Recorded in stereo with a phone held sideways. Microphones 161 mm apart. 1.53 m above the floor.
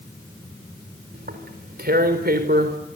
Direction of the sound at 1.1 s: 75° right (ahead or behind).